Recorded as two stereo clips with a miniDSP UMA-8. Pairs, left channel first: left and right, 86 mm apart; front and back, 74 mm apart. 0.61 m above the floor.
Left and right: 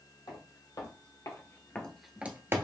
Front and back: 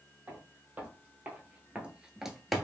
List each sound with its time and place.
0.3 s footsteps: 115° left, 1.3 m; by 2.6 s 85° right, 0.6 m